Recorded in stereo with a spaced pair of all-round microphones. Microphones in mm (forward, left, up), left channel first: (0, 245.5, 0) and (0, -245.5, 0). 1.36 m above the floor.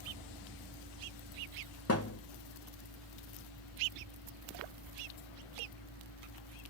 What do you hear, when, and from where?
0.0 s a fan: centre (ahead or behind), 2.5 m
1.9 s a thud: 30° left (ahead or behind), 0.9 m